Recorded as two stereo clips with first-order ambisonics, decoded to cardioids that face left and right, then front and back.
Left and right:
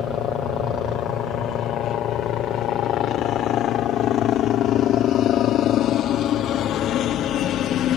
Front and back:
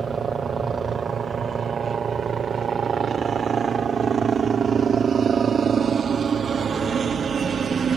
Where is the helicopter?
125° left.